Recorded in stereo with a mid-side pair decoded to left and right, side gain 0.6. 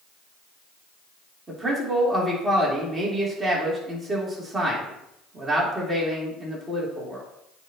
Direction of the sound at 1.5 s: 20° right.